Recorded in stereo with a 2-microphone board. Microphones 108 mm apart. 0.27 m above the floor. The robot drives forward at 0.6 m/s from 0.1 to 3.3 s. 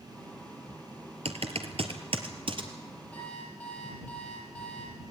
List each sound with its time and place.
1.2 s typing on a keyboard: 70° right (ahead or behind), 1.9 m; by 2.7 s 50° right (ahead or behind), 2.5 m
3.1 s an alarm clock: 10° left (ahead or behind), 5.5 m; by 5.0 s 15° left (ahead or behind), 5.5 m